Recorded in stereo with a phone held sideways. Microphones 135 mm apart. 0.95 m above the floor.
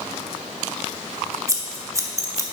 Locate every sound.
1.5 s scissors: 25° right (ahead or behind), 0.9 m